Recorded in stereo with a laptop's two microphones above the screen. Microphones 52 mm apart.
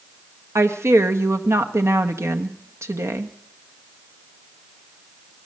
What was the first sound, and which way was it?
A woman speaking, 75° right (ahead or behind).